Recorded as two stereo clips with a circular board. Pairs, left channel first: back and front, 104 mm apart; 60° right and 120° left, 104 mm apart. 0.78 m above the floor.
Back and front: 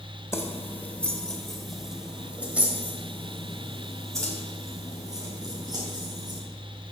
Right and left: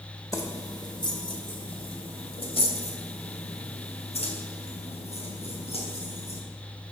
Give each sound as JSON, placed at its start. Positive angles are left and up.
{"t": 0.3, "sound": "keys jangling", "azimuth_deg": -115, "distance_m": 2.0}